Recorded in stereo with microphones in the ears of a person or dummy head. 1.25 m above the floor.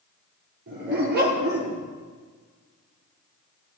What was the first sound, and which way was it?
A dog barking, 60° right (ahead or behind).